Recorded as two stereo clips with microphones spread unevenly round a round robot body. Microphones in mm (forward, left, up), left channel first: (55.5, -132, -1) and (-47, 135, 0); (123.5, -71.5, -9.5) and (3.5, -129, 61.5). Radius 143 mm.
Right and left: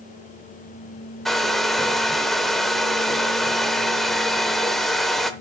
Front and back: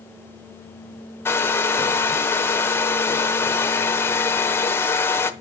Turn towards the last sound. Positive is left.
turn(degrees=20)